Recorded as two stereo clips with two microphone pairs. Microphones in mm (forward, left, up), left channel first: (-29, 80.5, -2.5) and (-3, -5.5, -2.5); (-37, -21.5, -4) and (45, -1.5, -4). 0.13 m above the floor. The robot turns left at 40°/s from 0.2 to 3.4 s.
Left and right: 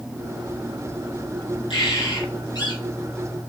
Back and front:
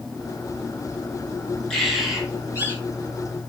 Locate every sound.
1.7 s a bird: 110° left, 4.5 m; by 2.8 s 70° left, 4.5 m